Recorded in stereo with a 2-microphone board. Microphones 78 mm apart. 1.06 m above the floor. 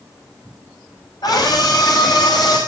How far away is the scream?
About 6.5 m.